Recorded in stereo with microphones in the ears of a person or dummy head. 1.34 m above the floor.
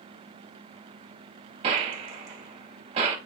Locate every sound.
1.6 s a gunshot: 30° right (ahead or behind), 1.1 m